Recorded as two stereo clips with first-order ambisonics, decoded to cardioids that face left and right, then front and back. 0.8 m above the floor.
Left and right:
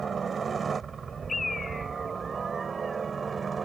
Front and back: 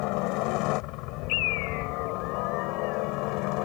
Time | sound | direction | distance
0.0 | a helicopter | 20° right | ?
1.3 | a bird | 15° left | ?